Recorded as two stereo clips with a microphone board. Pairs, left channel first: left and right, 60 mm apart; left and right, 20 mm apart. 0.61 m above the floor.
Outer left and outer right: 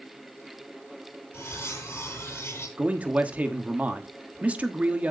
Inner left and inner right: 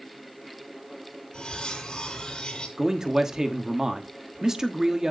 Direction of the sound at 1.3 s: 45° left (ahead or behind).